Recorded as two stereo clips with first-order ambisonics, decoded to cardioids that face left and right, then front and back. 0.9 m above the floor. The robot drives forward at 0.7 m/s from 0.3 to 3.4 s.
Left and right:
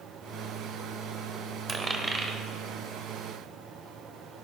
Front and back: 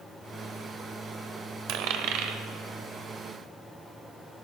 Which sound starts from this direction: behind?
A dropped coin, at 1.7 s.